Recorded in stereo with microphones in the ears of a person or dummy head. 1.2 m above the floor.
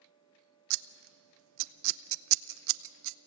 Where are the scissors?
65° right (ahead or behind), 0.5 m.